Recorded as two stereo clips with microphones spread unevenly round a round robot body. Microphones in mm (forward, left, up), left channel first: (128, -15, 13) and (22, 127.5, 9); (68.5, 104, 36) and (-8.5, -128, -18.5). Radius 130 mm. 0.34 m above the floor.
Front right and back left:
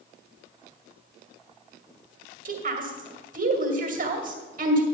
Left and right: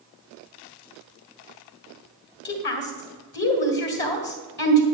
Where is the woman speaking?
120° left, 2 m.